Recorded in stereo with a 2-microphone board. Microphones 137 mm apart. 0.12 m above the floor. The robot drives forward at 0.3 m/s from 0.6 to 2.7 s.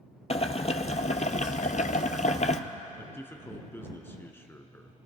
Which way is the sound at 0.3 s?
50° left (ahead or behind).